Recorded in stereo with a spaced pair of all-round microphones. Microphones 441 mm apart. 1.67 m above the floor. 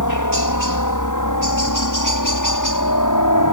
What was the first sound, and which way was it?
A helicopter, 40° left (ahead or behind).